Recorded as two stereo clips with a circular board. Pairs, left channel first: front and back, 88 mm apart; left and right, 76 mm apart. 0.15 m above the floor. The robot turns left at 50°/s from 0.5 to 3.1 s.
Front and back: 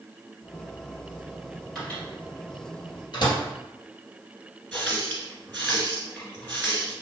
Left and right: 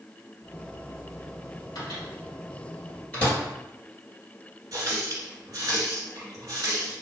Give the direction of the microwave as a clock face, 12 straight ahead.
9 o'clock.